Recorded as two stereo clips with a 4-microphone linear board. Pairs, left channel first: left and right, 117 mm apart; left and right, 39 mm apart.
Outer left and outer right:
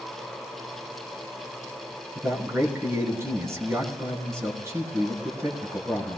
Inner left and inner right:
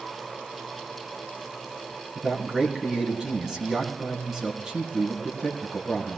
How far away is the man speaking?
About 3 m.